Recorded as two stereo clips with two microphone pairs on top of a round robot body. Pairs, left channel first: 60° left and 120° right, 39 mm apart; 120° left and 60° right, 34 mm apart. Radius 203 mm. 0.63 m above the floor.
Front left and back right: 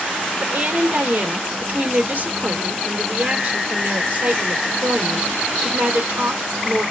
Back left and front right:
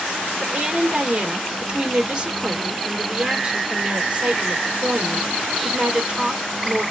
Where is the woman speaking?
110° right, 1.5 m.